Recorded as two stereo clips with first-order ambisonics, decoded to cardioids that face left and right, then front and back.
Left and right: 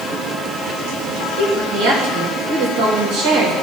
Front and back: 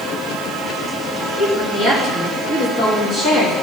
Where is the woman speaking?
70° right, 3 m.